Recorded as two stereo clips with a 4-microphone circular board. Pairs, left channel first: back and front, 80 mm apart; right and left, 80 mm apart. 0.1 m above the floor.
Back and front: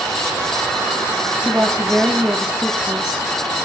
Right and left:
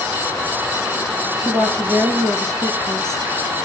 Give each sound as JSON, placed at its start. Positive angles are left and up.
{"t": 1.4, "sound": "a woman speaking", "azimuth_deg": 75, "distance_m": 2.0}